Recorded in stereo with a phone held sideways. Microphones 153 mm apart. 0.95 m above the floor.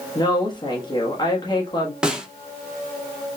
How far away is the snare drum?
About 0.5 m.